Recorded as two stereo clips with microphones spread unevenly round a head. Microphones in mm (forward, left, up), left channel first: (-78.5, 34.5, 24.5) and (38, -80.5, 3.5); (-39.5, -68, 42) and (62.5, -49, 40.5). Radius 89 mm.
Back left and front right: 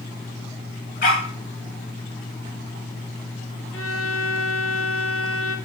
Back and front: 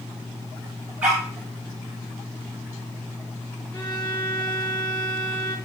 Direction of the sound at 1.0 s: 90° left.